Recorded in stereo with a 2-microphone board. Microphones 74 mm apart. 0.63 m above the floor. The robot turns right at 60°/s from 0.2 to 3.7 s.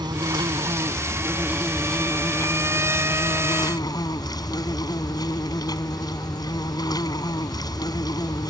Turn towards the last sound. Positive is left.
turn(degrees=115)